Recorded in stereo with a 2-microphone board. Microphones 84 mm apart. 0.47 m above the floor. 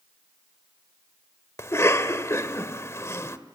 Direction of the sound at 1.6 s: 35° left (ahead or behind).